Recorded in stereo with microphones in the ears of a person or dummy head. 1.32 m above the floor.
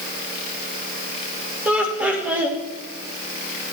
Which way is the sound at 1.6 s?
5° right (ahead or behind).